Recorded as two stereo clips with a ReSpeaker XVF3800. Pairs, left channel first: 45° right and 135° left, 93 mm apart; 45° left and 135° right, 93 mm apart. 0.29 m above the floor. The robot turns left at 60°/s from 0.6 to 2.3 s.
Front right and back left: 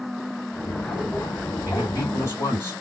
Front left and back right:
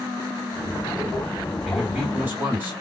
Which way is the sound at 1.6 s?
40° right.